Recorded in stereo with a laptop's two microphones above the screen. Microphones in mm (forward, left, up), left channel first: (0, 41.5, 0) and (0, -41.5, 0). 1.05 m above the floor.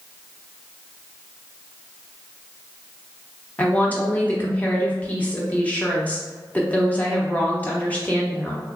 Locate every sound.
3.6 s a woman speaking: 20° left (ahead or behind), 1.0 m